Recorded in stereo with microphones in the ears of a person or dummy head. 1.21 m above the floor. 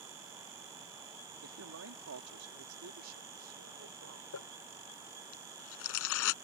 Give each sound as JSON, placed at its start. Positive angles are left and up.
{"t": 1.4, "sound": "a man speaking", "side_deg": -75}
{"t": 4.3, "sound": "crumpling", "side_deg": 75}